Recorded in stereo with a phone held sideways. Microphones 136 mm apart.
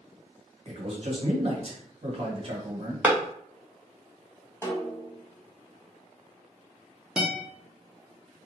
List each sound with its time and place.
0.7 s a man speaking: 45° right (ahead or behind), 1.0 m
3.0 s a clap: 10° right (ahead or behind), 0.7 m
4.6 s a snare drum: 20° left (ahead or behind), 0.6 m
7.2 s a guitar: 5° right (ahead or behind), 0.6 m